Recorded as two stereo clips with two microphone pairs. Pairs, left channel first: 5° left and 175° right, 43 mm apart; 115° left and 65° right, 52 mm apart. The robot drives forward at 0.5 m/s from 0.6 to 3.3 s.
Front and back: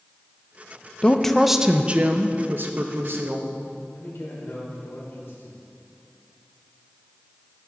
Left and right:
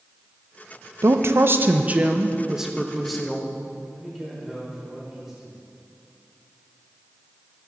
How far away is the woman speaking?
About 0.6 m.